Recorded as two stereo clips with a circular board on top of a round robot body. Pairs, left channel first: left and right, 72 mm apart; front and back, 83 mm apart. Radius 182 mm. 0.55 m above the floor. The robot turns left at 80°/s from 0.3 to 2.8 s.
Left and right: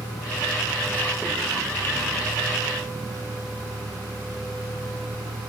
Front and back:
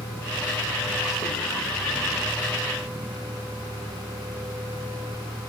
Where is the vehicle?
65° left; by 5.5 s 135° right.